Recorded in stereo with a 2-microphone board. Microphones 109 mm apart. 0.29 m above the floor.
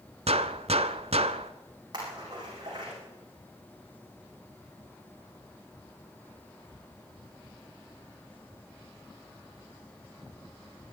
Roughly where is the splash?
Right.